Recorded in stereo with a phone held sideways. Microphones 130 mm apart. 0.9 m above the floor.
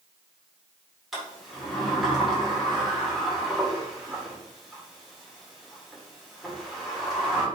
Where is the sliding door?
Centre (ahead or behind), 2 m.